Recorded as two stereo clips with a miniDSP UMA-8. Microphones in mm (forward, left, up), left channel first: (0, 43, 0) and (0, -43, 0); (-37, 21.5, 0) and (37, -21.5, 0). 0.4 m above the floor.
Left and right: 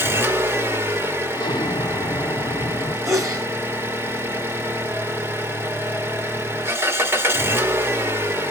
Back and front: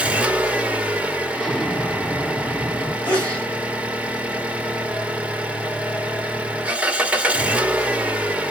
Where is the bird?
I don't hear a bird.